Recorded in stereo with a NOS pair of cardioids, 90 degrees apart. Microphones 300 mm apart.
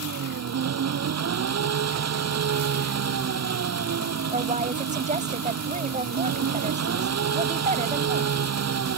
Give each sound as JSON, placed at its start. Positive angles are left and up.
{"t": 0.0, "sound": "an engine running", "azimuth_deg": -60}
{"t": 4.3, "sound": "a woman speaking", "azimuth_deg": -25}